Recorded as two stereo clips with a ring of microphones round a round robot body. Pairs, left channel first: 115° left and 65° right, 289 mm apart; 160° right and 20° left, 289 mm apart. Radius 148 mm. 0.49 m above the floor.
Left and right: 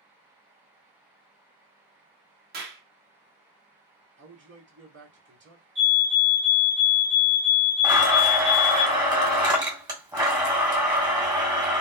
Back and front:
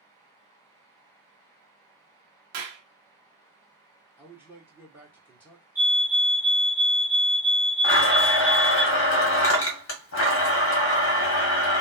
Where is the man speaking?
55° right, 1.5 m.